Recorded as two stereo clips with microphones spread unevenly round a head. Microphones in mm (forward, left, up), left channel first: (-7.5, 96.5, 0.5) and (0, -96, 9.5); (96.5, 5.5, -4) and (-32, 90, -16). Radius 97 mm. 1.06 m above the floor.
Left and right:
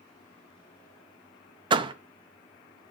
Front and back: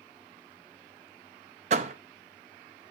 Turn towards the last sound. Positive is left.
turn(degrees=-155)